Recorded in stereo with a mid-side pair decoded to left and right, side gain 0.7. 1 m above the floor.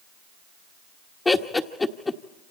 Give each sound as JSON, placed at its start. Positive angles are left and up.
{"t": 1.2, "sound": "laughter", "azimuth_deg": 15, "distance_m": 1.2}